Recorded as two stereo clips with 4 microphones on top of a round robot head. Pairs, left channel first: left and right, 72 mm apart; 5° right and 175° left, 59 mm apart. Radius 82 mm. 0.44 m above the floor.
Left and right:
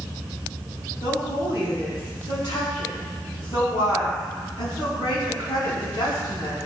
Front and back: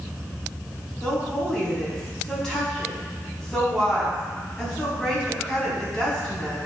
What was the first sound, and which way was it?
A woman speaking, 75° left.